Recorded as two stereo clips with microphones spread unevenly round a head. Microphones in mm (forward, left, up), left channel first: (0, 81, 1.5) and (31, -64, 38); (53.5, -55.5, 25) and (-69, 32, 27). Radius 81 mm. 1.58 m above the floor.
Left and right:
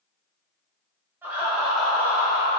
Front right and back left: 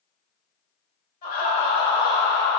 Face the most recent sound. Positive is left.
turn(degrees=55)